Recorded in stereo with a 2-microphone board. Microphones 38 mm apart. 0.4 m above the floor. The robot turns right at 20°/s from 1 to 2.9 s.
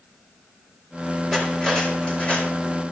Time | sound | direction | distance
1.3 | cutlery clinking | 20° left (ahead or behind) | 4.5 m